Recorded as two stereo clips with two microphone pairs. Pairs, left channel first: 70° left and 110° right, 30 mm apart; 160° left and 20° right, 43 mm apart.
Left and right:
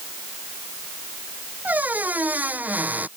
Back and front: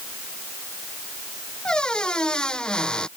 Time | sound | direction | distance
1.6 | a squeak | 130° right | ?